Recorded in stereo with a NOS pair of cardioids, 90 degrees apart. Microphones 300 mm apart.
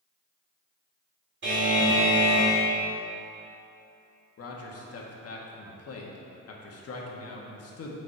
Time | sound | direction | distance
1.4 | a buzzer | 40° right | 2.5 m
4.4 | a man speaking | 50° left | 1.6 m